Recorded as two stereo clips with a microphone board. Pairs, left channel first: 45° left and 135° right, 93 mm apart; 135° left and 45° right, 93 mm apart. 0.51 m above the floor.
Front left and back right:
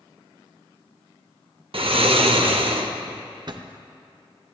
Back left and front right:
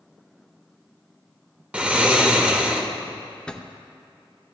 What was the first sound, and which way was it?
Snoring, 120° right.